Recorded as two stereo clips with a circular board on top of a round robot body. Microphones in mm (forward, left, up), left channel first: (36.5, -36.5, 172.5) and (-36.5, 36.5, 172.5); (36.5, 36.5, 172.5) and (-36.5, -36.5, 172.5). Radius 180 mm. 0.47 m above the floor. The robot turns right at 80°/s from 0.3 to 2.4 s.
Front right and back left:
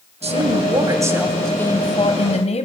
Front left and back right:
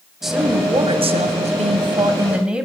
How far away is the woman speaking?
About 3 m.